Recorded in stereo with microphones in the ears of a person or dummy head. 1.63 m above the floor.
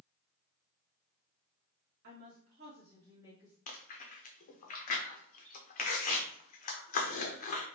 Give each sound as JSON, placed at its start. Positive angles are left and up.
{"t": 2.0, "sound": "a woman speaking", "side_deg": -55, "distance_m": 1.1}
{"t": 3.7, "sound": "chewing", "side_deg": 35, "distance_m": 0.7}